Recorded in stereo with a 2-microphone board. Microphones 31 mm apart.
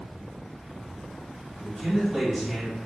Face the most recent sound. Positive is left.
turn(degrees=15)  # may be behind; listen again after turning